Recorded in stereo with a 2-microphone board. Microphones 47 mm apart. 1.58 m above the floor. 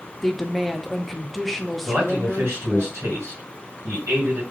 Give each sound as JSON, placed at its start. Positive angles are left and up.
{"t": 0.2, "sound": "a woman speaking", "side_deg": 0, "distance_m": 0.5}
{"t": 1.9, "sound": "a man speaking", "side_deg": -65, "distance_m": 1.9}